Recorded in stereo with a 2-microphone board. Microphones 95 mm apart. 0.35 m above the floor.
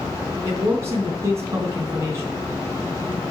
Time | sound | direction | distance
0.4 | a man speaking | 30° right (ahead or behind) | 3 m